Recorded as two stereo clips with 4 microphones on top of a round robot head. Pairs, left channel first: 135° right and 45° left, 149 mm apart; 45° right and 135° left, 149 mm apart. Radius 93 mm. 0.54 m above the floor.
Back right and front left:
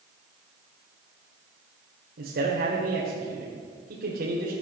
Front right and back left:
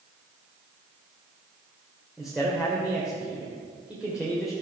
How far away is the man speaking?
About 2 m.